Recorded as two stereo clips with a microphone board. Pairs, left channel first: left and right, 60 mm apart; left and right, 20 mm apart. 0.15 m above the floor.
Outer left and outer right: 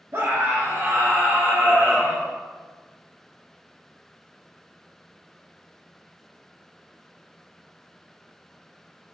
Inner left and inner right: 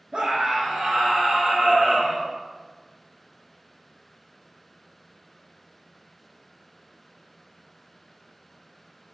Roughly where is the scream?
Right.